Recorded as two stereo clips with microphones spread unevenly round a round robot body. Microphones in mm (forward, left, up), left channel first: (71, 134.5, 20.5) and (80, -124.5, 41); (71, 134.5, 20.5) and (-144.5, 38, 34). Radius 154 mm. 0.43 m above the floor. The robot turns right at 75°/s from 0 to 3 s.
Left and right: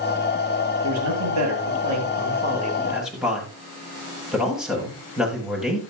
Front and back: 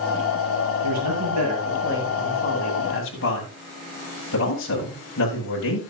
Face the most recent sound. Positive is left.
turn(degrees=0)